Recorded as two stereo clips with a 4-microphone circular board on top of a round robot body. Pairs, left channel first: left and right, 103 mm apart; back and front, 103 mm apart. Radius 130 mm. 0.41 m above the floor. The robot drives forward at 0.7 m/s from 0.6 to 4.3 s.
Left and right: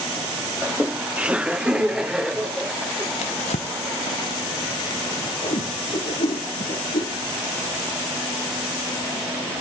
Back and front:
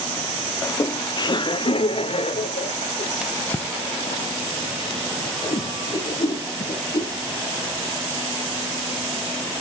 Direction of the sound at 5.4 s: 125° left.